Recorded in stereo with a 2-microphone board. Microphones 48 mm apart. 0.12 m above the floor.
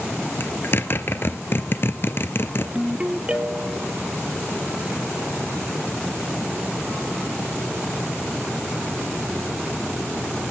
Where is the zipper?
45° left (ahead or behind), 1.3 m.